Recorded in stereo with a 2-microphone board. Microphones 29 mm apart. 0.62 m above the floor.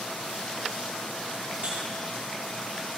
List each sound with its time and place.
1.6 s a buzzer: 40° right (ahead or behind), 6 m